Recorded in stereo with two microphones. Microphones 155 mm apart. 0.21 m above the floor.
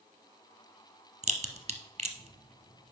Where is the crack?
45° right (ahead or behind), 0.9 m.